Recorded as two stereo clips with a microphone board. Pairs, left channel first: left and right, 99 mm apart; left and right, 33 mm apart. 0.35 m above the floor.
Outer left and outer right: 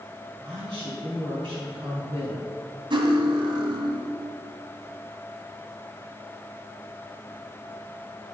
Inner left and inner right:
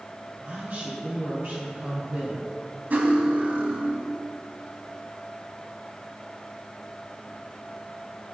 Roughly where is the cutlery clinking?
Right.